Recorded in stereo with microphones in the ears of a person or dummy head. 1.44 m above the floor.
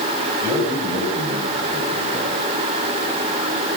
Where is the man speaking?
25° right (ahead or behind), 8 m.